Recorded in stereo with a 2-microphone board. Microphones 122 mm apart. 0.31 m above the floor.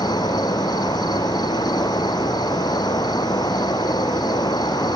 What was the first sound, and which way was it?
An insect, 35° left (ahead or behind).